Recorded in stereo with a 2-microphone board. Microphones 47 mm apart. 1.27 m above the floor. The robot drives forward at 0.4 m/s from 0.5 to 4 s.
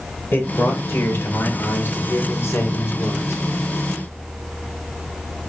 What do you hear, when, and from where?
0.3 s a man speaking: 40° left (ahead or behind), 2 m; by 3.4 s 65° left (ahead or behind), 1.5 m